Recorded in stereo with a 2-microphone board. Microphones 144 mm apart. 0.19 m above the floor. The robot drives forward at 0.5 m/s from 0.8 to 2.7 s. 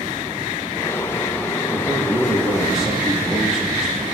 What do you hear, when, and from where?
1.7 s a man speaking: centre (ahead or behind), 7 m